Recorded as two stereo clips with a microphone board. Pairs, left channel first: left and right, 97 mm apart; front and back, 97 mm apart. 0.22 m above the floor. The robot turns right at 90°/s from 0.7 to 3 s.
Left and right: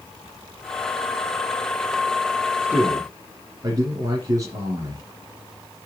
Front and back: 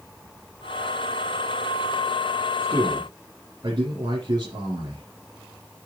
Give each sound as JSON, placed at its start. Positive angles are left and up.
{"t": 2.6, "sound": "a man speaking", "azimuth_deg": -175, "distance_m": 3.5}